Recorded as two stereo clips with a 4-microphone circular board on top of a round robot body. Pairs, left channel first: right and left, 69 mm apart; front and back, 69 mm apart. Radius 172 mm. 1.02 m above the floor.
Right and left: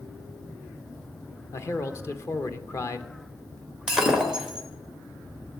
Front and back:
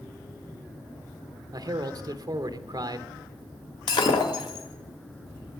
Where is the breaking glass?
5° left, 1.3 m.